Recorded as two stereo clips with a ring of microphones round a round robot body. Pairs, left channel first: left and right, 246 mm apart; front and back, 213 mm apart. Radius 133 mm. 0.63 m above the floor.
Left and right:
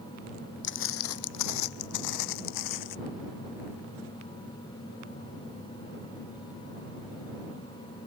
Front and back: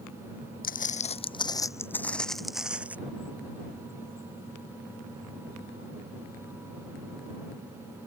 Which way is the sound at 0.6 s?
45° left.